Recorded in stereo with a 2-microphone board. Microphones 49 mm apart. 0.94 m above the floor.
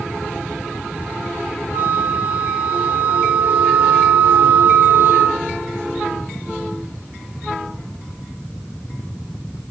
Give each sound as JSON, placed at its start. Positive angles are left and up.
{"t": 1.7, "sound": "a flute", "side_deg": -55, "distance_m": 3.5}